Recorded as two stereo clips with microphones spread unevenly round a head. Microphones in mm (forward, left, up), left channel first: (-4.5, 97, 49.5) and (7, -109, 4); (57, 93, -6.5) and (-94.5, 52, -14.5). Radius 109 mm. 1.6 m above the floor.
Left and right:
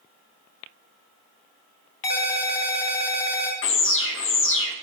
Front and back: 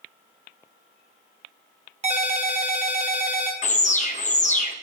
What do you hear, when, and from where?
2.0 s a ringtone: 155° left, 1.3 m
3.6 s an alarm: 60° left, 0.8 m